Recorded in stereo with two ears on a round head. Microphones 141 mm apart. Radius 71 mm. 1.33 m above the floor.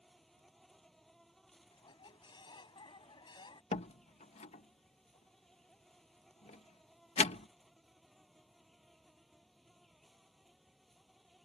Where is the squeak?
30° left (ahead or behind).